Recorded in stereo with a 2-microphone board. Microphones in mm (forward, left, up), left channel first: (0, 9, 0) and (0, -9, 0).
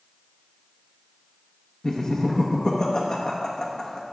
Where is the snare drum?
No snare drum in this recording.